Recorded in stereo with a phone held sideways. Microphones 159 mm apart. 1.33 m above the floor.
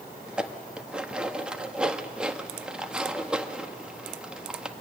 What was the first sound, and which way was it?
Dishes clattering, 5° right (ahead or behind).